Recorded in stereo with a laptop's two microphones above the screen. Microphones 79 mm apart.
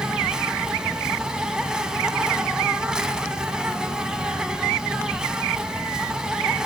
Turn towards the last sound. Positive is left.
turn(degrees=-10)  # may be behind; listen again after turning